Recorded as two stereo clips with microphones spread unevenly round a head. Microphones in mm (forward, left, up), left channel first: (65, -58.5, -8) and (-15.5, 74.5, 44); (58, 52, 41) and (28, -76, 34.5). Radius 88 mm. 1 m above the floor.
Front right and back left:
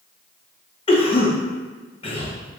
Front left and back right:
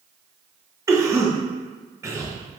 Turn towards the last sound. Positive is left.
turn(degrees=-45)